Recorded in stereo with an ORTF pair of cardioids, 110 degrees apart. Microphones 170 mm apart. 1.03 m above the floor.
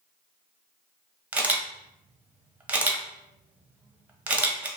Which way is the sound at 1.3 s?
10° right.